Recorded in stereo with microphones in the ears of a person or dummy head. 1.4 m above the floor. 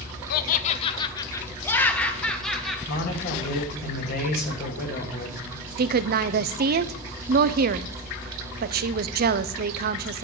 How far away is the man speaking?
About 1.9 m.